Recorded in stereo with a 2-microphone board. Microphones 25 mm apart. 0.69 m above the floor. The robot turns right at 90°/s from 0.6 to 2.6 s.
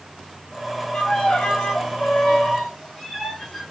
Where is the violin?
35° left, 2 m; by 3.6 s straight behind, 2 m.